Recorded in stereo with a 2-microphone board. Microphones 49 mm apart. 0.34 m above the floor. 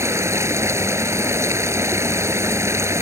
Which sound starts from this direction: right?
Running water, at 0.0 s.